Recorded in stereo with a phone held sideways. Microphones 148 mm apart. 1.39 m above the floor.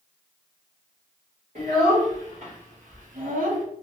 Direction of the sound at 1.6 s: 55° right (ahead or behind).